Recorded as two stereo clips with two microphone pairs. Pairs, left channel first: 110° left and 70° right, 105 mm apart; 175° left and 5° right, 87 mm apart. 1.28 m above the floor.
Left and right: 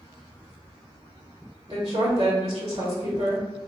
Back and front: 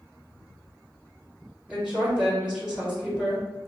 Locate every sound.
1.7 s a woman speaking: 85° right, 1.3 m